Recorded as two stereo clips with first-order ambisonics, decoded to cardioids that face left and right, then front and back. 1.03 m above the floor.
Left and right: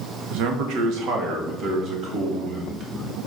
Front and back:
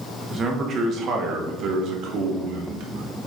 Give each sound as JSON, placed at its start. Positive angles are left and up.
{"t": 0.3, "sound": "a man speaking", "azimuth_deg": -115, "distance_m": 1.5}